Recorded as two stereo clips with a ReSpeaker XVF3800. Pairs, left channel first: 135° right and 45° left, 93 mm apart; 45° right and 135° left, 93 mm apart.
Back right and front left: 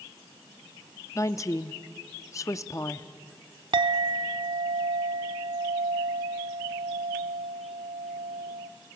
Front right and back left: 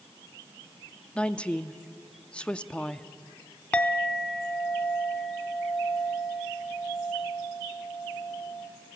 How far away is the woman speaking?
About 0.6 m.